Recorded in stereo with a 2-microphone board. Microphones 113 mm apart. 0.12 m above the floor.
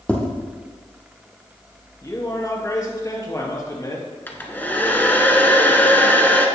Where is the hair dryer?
15° left (ahead or behind), 1.2 m.